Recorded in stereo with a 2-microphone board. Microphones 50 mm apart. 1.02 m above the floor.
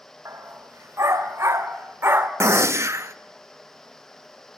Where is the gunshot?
70° right (ahead or behind), 0.8 m.